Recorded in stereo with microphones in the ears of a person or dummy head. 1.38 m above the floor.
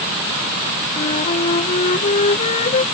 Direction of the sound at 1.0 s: 40° left (ahead or behind).